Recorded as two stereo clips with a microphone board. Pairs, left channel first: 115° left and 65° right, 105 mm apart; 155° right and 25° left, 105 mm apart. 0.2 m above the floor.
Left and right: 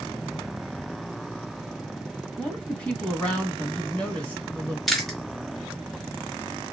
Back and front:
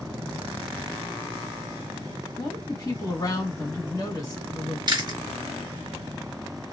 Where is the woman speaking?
175° right, 1.8 m.